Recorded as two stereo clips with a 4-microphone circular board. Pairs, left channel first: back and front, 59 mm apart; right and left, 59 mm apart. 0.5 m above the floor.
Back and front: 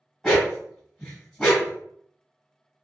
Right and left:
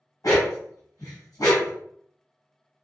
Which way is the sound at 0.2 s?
95° right.